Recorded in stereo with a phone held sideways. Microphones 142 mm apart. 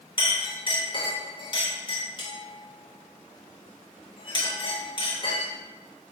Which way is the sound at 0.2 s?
35° left (ahead or behind).